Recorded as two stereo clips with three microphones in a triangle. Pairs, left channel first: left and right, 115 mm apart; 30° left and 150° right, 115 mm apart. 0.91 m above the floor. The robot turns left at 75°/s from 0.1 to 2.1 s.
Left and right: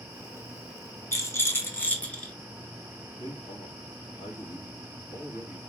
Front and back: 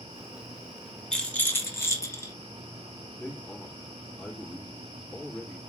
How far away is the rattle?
About 0.9 m.